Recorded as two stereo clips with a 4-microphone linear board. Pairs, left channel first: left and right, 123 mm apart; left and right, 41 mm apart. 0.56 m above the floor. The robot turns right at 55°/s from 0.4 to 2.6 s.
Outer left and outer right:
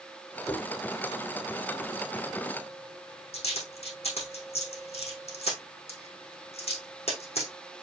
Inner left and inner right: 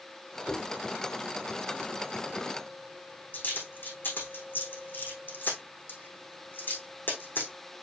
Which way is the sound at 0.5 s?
5° left (ahead or behind).